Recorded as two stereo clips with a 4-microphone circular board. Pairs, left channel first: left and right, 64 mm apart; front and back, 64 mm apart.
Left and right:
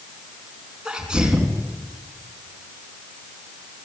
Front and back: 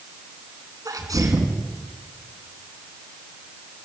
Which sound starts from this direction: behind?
A sneeze, at 0.8 s.